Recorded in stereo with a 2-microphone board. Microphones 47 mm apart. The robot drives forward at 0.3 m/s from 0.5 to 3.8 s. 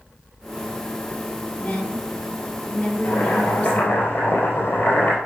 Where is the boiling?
55° left (ahead or behind), 2.5 m.